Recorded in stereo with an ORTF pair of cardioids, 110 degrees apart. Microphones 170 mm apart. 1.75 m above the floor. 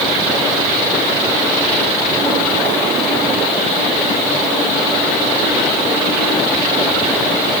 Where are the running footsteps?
I don't hear running footsteps.